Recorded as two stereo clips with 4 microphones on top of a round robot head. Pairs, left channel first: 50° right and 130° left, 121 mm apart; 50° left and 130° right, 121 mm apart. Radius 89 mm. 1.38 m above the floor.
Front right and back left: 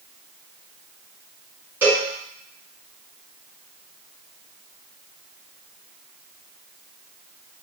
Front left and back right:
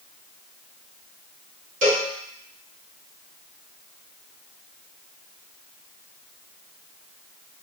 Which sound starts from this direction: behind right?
A cowbell, at 1.8 s.